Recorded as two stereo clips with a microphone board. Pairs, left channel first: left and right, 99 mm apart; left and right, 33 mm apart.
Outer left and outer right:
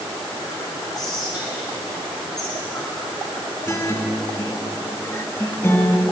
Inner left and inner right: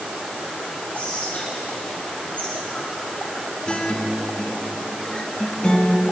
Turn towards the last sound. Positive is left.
turn(degrees=25)  # may be behind; listen again after turning